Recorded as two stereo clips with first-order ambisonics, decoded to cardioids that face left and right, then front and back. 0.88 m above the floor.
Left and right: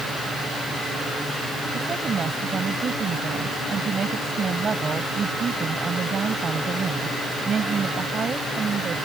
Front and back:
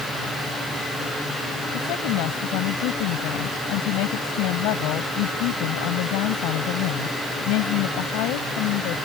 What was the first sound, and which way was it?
A woman speaking, 20° right.